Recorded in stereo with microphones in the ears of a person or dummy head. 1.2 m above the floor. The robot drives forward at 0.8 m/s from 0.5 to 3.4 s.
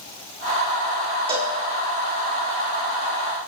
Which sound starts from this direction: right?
A cowbell, at 1.3 s.